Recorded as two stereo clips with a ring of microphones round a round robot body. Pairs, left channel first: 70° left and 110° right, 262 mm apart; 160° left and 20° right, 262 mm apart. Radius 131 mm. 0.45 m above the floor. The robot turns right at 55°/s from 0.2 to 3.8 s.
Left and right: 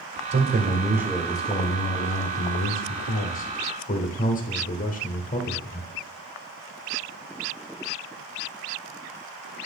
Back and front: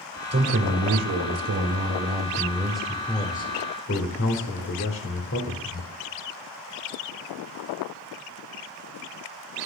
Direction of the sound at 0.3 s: 70° right.